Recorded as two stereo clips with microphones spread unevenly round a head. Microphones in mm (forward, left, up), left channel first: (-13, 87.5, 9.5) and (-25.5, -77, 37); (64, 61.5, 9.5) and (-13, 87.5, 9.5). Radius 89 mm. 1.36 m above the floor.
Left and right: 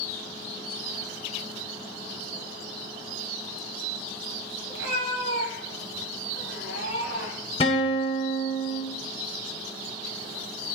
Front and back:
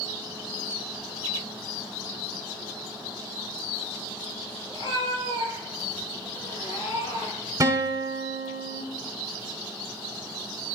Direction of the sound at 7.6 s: 140° left.